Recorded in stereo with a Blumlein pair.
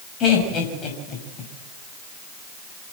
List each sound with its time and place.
0.2 s laughter: 30° left, 6 m